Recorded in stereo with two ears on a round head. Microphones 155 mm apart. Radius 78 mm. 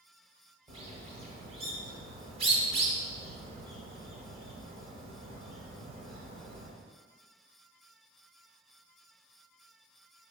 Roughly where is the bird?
Right.